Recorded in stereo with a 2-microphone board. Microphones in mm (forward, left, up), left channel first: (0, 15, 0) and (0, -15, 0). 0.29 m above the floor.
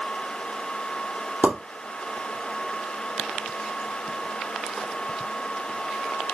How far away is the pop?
About 3 m.